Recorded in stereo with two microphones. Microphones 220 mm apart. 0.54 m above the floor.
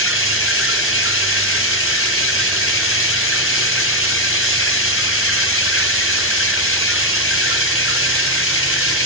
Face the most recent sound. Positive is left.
turn(degrees=70)  # may be behind; listen again after turning